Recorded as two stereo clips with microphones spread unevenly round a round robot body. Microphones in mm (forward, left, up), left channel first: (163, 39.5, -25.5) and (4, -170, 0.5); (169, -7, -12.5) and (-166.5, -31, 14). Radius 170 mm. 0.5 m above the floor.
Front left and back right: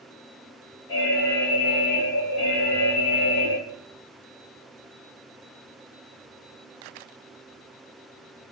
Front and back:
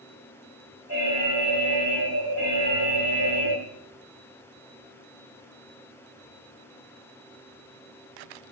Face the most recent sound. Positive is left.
turn(degrees=45)